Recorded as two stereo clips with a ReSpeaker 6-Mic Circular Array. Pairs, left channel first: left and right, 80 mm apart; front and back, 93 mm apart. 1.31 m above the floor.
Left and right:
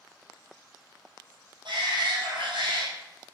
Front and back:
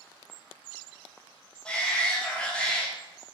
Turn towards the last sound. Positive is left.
turn(degrees=-80)